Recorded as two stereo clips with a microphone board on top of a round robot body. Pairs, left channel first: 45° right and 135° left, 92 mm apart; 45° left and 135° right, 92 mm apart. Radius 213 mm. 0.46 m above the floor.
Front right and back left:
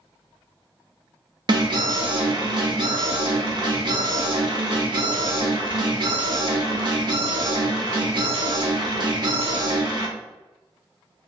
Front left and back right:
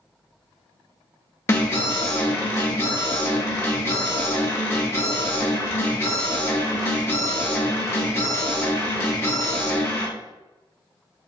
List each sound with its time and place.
1.5 s an alarm: 105° left, 1.2 m